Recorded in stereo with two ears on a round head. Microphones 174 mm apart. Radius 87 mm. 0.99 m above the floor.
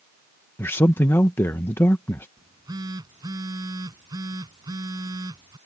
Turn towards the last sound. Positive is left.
turn(degrees=-20)  # may be behind; listen again after turning